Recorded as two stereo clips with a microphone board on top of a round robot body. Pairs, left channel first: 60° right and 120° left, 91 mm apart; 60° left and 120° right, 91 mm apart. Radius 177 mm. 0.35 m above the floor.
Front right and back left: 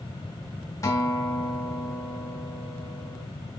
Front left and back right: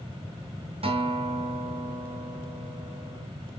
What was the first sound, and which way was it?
A guitar, 115° right.